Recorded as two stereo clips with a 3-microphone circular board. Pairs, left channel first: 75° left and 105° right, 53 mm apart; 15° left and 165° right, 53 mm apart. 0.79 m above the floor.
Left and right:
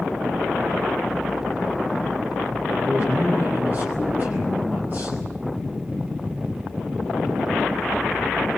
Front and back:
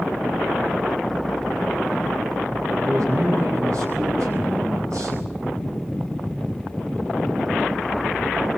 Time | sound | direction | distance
2.8 | a man speaking | 155° right | 6 m